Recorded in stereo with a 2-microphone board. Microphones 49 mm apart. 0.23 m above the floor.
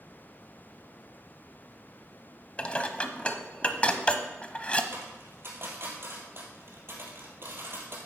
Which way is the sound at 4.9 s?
55° right (ahead or behind).